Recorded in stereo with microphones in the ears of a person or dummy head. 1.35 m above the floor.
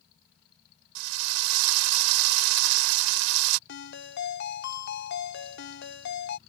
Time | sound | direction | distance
0.9 | a drill | 85° right | ?
3.7 | a ringtone | 60° left (ahead or behind) | ?